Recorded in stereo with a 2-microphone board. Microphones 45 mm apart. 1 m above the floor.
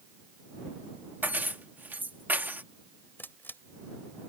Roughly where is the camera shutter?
Left.